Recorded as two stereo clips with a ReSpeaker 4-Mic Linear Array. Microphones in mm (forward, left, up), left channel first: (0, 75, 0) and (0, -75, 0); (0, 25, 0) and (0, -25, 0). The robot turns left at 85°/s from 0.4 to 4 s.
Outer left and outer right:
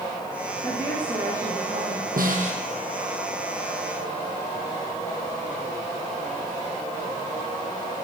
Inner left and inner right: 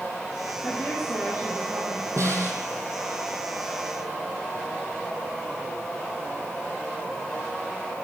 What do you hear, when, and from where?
0.6 s a woman speaking: 35° left, 9 m; by 2.1 s 85° right, 9 m
2.2 s a snare drum: 95° right, 4 m; by 2.6 s 135° right, 4 m